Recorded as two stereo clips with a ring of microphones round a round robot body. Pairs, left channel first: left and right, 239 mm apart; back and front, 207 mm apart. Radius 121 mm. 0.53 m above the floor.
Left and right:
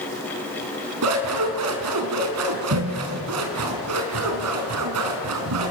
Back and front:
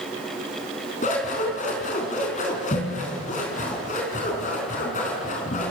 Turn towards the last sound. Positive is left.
turn(degrees=-120)